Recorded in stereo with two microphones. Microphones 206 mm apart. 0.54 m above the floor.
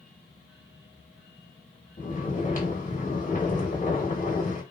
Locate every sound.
2.0 s snoring: 35° left (ahead or behind), 0.9 m